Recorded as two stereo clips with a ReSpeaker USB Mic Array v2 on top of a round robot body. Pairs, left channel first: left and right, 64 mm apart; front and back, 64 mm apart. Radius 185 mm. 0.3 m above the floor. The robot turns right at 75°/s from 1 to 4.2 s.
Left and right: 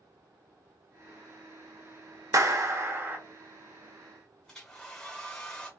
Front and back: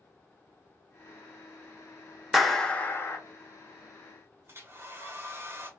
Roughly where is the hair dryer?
Behind.